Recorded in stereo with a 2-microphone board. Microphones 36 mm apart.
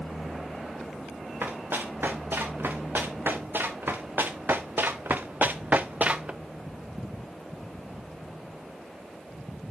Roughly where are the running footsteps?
Right.